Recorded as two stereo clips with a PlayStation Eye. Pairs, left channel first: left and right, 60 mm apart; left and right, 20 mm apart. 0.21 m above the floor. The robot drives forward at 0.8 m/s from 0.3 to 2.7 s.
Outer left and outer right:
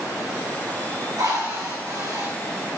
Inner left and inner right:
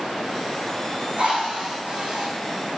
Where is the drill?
80° right, 5.5 m; by 2.3 s 70° right (ahead or behind), 6 m.